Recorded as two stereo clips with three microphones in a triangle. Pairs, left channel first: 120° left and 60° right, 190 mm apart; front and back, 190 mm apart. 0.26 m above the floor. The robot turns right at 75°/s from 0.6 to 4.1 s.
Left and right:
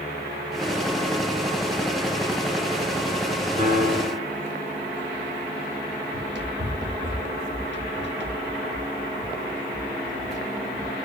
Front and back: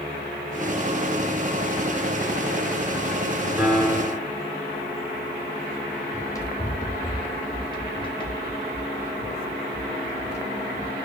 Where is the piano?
100° right, 3 m; by 4.3 s 60° right, 3 m.